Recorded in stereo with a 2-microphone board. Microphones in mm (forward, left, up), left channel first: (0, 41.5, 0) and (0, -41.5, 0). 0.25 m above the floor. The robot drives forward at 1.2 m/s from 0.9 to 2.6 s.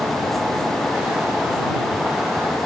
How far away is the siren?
I don't hear a siren.